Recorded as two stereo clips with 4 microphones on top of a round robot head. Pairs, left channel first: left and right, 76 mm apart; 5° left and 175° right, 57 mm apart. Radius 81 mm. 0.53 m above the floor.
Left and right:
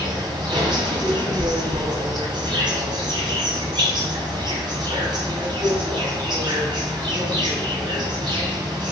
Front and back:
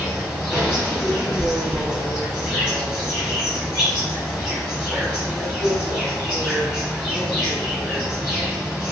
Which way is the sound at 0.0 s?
90° right.